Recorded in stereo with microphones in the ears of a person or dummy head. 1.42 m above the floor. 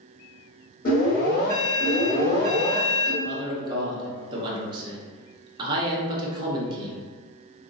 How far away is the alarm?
About 2.0 m.